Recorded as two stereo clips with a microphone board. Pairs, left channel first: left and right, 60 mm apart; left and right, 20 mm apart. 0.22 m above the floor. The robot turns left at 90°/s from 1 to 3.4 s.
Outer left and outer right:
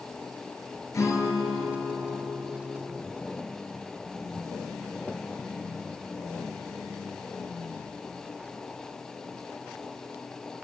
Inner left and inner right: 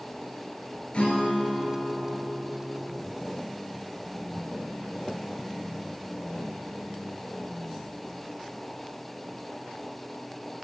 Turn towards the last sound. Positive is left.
turn(degrees=-95)